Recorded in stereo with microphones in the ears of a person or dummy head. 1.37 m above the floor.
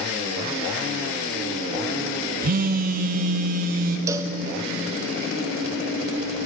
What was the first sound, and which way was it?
A phone buzzing, 45° right (ahead or behind).